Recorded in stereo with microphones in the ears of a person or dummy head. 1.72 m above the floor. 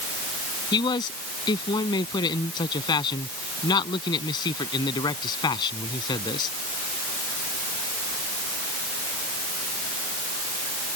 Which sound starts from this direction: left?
A man speaking, at 0.7 s.